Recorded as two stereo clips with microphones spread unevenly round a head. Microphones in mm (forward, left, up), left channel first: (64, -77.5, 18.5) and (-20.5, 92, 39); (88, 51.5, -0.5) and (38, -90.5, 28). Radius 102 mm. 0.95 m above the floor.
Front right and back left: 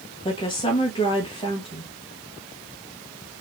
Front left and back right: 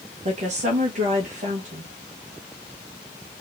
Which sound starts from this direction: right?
A woman speaking, at 0.2 s.